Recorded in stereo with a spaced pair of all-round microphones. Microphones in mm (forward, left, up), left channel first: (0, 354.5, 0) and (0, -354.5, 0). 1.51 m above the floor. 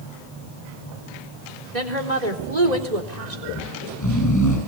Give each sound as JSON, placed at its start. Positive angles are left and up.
{"t": 1.7, "sound": "a woman speaking", "side_deg": -70, "distance_m": 4.0}
{"t": 3.5, "sound": "snoring", "side_deg": 25, "distance_m": 8.5}